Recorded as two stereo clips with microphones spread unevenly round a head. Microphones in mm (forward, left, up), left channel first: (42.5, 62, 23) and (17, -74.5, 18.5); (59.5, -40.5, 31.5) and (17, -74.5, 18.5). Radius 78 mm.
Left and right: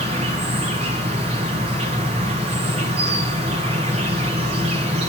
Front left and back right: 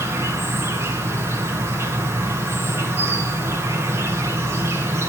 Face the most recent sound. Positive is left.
turn(degrees=-140)